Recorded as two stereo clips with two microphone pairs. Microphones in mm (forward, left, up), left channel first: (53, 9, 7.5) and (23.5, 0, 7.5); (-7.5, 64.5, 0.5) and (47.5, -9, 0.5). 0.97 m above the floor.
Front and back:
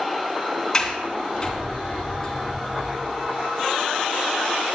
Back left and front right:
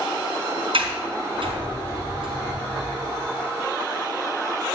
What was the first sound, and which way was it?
A sliding door, 55° right.